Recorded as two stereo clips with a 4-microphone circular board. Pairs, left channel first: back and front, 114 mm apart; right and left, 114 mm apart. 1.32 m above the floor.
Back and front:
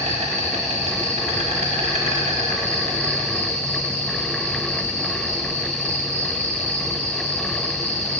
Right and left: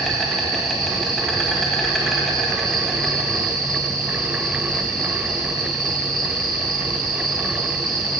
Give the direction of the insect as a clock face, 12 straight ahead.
12 o'clock.